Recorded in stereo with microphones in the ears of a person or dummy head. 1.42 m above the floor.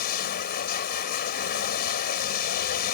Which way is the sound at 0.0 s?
50° left (ahead or behind).